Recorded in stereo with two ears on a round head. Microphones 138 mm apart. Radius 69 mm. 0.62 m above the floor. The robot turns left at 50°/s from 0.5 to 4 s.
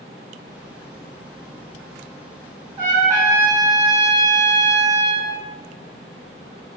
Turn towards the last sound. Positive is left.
turn(degrees=-170)